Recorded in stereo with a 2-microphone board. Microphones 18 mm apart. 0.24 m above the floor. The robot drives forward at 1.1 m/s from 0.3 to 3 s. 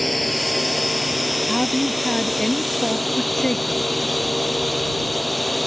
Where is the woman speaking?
25° left (ahead or behind); by 3.8 s 35° left (ahead or behind).